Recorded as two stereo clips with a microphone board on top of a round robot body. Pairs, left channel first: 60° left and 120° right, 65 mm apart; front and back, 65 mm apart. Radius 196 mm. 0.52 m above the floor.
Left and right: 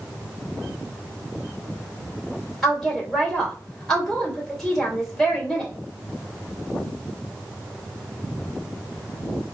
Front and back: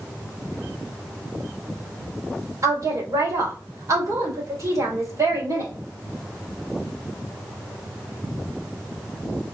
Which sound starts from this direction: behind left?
A woman speaking, at 2.6 s.